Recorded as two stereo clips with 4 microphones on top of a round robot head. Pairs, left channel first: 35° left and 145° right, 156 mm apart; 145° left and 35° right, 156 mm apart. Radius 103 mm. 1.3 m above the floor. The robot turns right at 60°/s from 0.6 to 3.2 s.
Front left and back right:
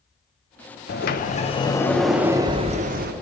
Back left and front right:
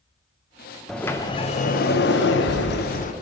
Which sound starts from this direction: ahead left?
A sliding door, at 0.9 s.